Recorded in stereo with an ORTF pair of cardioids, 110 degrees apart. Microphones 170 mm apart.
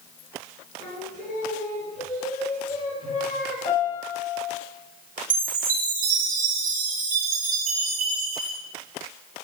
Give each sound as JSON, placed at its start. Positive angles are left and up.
{"t": 0.8, "sound": "singing", "azimuth_deg": 55, "distance_m": 4.0}
{"t": 3.6, "sound": "a piano", "azimuth_deg": 55, "distance_m": 2.5}
{"t": 5.3, "sound": "a chime", "azimuth_deg": -55, "distance_m": 3.0}